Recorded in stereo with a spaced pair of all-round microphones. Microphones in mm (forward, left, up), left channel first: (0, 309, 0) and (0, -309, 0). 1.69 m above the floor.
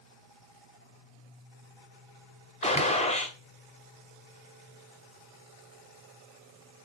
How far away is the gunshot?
About 0.7 m.